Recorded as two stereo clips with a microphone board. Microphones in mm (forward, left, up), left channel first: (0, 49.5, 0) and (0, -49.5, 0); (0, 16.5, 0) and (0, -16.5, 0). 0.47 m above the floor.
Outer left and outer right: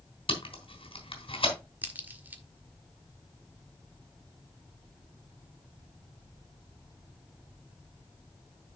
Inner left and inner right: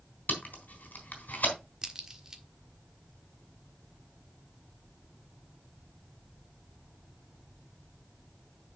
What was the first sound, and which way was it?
Tape being pulled, 65° left (ahead or behind).